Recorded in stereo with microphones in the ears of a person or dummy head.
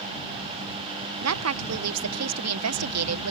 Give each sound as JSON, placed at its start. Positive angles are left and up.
{"t": 1.2, "sound": "a woman speaking", "side_deg": -75}